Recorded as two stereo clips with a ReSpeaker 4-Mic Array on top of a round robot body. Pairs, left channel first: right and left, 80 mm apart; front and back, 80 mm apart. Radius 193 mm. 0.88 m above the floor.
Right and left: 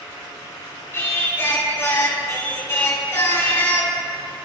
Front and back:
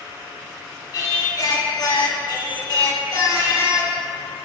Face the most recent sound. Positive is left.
turn(degrees=-30)